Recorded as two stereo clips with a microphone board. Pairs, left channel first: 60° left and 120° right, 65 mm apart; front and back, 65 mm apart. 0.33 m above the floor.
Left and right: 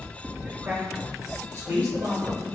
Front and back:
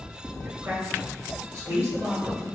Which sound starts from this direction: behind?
A man speaking, at 0.4 s.